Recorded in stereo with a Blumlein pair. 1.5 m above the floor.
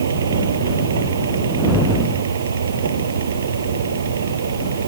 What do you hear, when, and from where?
0.0 s a fan: 70° right